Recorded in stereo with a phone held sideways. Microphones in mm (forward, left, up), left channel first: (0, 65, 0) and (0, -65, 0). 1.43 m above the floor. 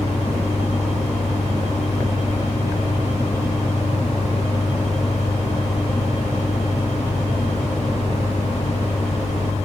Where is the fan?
50° left (ahead or behind), 0.9 m.